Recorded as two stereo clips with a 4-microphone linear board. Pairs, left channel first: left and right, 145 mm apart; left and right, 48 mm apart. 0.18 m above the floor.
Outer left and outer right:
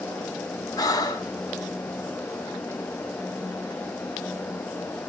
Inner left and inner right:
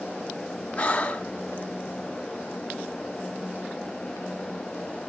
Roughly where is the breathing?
Left.